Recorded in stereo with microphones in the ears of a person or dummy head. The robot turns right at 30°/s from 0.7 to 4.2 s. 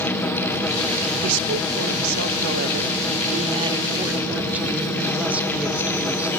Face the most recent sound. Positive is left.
turn(degrees=-5)